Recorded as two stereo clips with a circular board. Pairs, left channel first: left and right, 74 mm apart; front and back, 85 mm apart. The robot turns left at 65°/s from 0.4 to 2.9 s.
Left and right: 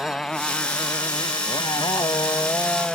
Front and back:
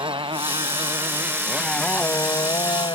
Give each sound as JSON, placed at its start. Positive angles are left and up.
{"t": 0.0, "sound": "a motorcycle", "azimuth_deg": 170}